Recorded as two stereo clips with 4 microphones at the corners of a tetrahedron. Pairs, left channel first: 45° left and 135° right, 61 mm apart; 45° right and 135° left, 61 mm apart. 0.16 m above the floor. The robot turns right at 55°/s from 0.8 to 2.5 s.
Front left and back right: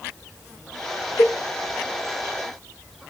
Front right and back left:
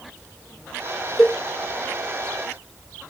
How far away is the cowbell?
About 1.0 m.